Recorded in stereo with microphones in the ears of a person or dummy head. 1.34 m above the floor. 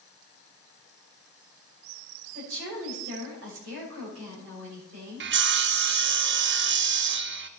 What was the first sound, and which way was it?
A woman speaking, 70° right (ahead or behind).